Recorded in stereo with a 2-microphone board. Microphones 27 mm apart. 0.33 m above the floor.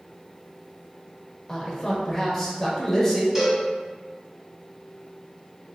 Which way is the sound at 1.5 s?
15° left (ahead or behind).